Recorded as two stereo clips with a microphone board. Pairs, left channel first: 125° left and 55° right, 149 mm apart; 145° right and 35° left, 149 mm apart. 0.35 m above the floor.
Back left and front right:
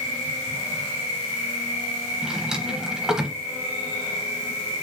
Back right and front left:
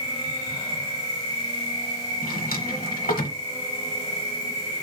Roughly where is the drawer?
Behind right.